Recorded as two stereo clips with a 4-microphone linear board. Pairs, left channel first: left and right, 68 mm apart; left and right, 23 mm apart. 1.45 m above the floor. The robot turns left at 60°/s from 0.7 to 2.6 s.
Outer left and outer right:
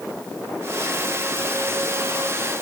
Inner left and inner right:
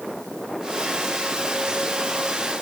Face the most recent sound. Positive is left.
No sound to turn to.